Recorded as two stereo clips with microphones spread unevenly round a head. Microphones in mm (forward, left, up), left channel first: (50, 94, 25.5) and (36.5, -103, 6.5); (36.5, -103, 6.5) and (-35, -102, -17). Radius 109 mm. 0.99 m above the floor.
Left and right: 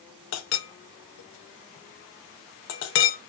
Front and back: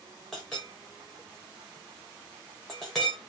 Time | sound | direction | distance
0.3 | a clink | 95° left | 0.6 m